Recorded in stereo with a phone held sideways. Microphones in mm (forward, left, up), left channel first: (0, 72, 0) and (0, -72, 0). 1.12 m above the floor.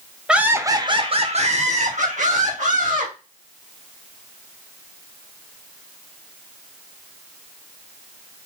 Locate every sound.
0.3 s laughter: 5° right (ahead or behind), 0.7 m; by 3.1 s 65° right (ahead or behind), 1.9 m